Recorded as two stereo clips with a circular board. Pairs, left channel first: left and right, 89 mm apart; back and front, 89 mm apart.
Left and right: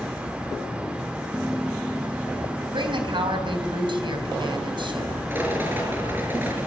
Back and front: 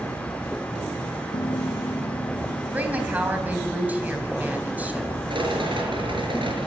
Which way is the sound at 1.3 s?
160° right.